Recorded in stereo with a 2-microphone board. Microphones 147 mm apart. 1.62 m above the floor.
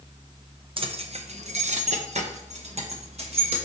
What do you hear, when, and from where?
0.8 s keys jangling: 40° right (ahead or behind), 0.8 m; by 3.6 s 45° right (ahead or behind), 1.7 m